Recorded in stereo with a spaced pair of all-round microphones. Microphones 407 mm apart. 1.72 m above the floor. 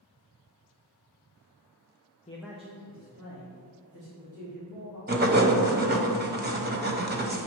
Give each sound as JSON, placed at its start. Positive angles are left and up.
{"t": 2.3, "sound": "a man speaking", "side_deg": 15, "distance_m": 0.6}
{"t": 5.1, "sound": "writing", "side_deg": -25, "distance_m": 0.7}